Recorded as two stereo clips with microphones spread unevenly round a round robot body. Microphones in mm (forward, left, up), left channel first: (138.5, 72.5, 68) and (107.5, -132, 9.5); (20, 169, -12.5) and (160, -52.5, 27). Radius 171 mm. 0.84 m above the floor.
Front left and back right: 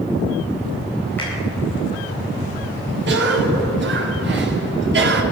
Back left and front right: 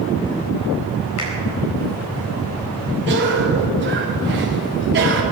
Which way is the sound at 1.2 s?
165° left.